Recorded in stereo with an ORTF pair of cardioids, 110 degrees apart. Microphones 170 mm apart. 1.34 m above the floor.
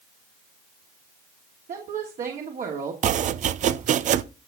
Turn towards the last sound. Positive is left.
turn(degrees=-45)